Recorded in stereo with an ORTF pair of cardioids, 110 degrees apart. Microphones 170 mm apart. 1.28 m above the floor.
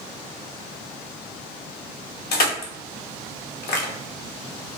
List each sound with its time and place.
2.3 s crushing: 65° left, 1.0 m